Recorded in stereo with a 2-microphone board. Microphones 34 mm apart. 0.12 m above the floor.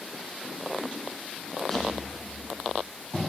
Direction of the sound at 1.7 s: 15° left (ahead or behind).